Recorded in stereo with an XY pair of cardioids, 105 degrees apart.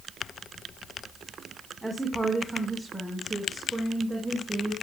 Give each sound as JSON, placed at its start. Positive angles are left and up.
{"t": 1.8, "sound": "a woman speaking", "azimuth_deg": 5, "distance_m": 4.5}